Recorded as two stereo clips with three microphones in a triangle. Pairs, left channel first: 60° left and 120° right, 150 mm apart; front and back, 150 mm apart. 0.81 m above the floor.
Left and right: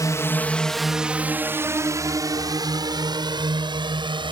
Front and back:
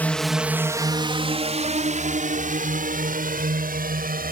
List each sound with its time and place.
0.0 s a drone: 60° left; by 4.3 s 175° right